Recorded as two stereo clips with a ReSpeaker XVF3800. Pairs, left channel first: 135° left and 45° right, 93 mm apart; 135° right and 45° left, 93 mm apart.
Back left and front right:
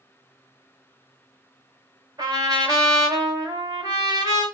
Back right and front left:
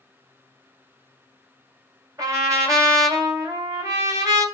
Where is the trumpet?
5° right, 2 m.